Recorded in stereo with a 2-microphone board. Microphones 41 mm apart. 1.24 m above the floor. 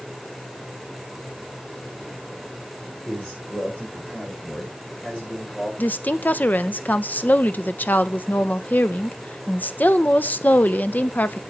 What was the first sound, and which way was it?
A man speaking, 25° left (ahead or behind).